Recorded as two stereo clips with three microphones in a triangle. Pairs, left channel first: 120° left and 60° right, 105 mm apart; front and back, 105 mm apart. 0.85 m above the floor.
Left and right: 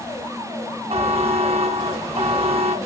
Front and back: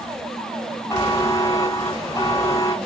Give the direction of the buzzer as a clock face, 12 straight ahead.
2 o'clock.